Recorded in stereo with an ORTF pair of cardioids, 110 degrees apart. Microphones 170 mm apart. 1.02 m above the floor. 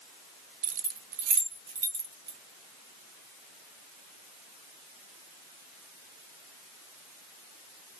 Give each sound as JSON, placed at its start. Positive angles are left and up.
{"t": 0.6, "sound": "keys jangling", "azimuth_deg": -50, "distance_m": 0.5}